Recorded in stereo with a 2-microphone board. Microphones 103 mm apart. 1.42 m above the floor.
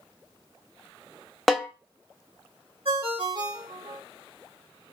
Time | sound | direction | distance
1.5 | a snare drum | centre (ahead or behind) | 0.5 m
2.9 | a ringtone | 60° right (ahead or behind) | 1.7 m